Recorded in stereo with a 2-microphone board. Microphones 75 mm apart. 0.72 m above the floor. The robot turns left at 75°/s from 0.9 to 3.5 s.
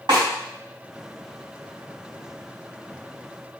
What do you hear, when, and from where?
0.1 s a snare drum: 75° right (ahead or behind), 3.5 m